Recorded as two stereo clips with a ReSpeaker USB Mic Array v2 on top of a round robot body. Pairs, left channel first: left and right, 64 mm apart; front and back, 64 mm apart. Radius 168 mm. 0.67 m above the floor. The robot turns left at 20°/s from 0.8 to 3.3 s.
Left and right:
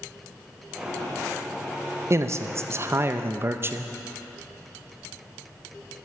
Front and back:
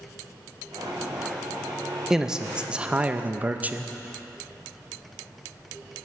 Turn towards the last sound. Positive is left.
turn(degrees=-125)